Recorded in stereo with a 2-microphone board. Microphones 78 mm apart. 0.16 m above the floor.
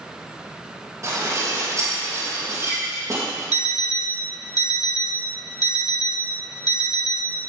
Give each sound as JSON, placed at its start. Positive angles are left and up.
{"t": 1.0, "sound": "dishes clattering", "side_deg": -45, "distance_m": 4.0}
{"t": 3.5, "sound": "an alarm clock", "side_deg": 60, "distance_m": 0.7}